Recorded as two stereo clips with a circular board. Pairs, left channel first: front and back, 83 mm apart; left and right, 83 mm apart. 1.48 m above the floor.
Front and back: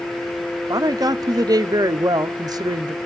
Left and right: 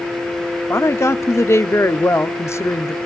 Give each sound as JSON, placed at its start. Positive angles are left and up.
{"t": 0.7, "sound": "a woman speaking", "azimuth_deg": 145, "distance_m": 0.6}